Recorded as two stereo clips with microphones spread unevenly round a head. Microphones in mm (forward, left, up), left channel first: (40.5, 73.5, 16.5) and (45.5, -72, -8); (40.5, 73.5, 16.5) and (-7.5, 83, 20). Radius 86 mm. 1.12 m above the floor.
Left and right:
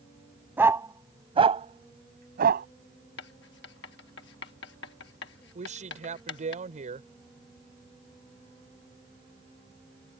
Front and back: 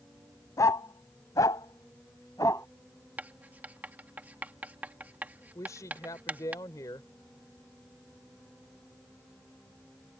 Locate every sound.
0.6 s a dog barking: 10° right; by 2.7 s 70° right
3.2 s writing: 115° left
5.5 s a woman speaking: 50° right